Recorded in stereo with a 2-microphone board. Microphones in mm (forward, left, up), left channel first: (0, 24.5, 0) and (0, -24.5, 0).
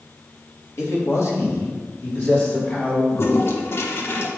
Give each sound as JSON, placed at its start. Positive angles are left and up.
{"t": 0.8, "sound": "a man speaking", "side_deg": 70, "distance_m": 2.0}
{"t": 3.1, "sound": "a toilet flushing", "side_deg": 60, "distance_m": 0.8}